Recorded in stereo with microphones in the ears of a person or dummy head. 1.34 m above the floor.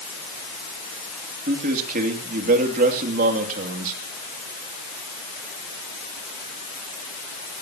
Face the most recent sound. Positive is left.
turn(degrees=-50)  # may be behind; listen again after turning